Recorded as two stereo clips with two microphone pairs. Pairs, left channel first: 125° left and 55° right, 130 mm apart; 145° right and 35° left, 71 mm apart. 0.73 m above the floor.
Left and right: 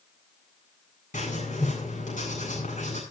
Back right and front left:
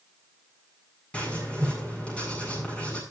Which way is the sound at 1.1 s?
140° left.